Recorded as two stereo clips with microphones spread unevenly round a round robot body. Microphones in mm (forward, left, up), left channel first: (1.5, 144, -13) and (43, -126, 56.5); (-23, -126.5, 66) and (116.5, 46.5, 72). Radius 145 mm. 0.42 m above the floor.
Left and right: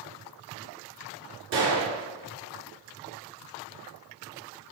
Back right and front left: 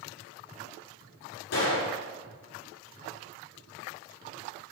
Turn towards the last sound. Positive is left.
turn(degrees=-115)